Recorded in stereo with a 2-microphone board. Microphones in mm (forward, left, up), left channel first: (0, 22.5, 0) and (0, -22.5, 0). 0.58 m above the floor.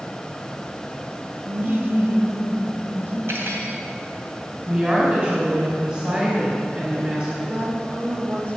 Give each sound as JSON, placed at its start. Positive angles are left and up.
{"t": 1.5, "sound": "laughter", "side_deg": -30, "distance_m": 0.9}
{"t": 3.3, "sound": "cutlery clinking", "side_deg": -70, "distance_m": 2.0}
{"t": 4.7, "sound": "a woman speaking", "side_deg": -30, "distance_m": 3.5}
{"t": 7.4, "sound": "a woman speaking", "side_deg": -50, "distance_m": 3.0}